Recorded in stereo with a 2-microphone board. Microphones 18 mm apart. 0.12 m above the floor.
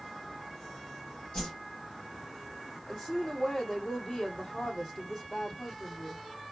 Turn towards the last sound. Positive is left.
turn(degrees=30)  # may be behind; listen again after turning